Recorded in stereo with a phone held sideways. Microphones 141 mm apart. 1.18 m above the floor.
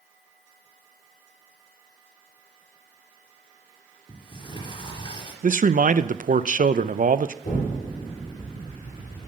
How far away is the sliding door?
About 3.5 m.